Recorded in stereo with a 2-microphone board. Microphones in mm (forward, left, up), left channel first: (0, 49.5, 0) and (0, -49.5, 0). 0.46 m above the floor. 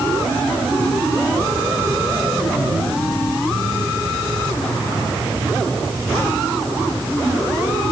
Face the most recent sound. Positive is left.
No sound to turn to.